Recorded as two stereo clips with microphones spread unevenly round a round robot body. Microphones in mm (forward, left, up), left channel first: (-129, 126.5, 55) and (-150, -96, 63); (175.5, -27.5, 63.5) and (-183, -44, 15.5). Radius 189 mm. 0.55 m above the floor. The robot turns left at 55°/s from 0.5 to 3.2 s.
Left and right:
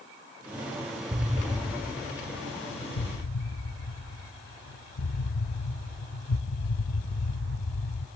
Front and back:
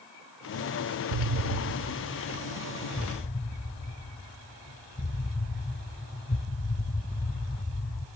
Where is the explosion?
170° right, 0.7 m; by 8.1 s 75° left, 0.7 m.